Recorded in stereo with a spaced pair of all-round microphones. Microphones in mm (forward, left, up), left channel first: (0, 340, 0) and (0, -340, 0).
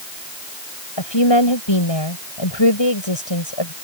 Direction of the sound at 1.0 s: 40° left (ahead or behind).